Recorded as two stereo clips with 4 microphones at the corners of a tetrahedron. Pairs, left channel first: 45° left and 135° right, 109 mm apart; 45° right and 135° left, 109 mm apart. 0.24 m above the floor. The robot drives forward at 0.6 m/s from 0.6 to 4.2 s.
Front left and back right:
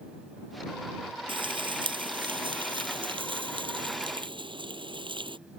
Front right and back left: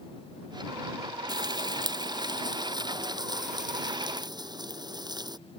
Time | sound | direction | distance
1.3 | frying | 175° right | ?